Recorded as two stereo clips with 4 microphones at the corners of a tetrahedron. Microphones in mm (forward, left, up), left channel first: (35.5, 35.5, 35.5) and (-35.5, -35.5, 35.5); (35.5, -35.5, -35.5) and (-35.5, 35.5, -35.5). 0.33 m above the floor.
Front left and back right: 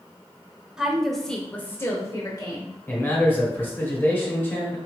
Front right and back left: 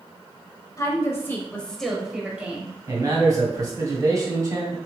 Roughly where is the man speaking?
Left.